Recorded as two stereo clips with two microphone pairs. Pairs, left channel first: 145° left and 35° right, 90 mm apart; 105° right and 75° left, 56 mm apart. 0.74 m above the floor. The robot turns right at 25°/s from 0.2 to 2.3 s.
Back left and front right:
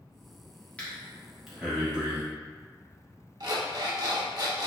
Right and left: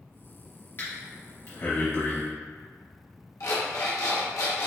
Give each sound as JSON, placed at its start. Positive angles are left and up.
{"t": 0.8, "sound": "breathing", "azimuth_deg": -145, "distance_m": 1.7}
{"t": 3.4, "sound": "an alarm clock", "azimuth_deg": -80, "distance_m": 1.1}